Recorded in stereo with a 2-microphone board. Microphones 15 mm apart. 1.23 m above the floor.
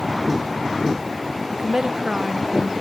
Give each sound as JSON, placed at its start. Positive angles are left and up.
{"t": 1.5, "sound": "a woman speaking", "side_deg": -70, "distance_m": 0.9}